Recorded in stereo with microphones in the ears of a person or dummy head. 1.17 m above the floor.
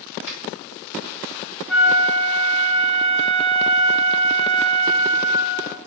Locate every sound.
0.3 s a finger snap: 85° left, 1.8 m
1.7 s a flute: 5° right (ahead or behind), 0.5 m